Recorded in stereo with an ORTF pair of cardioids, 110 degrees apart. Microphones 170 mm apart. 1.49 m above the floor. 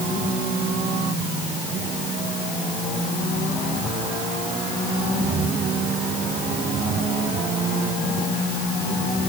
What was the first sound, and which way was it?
Only background noise.